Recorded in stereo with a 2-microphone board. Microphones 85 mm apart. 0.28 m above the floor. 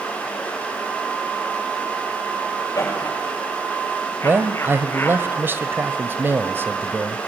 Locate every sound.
2.8 s laughter: 40° left (ahead or behind), 8 m; by 5.2 s 25° left (ahead or behind), 5.5 m
4.2 s a man speaking: 25° right (ahead or behind), 1.0 m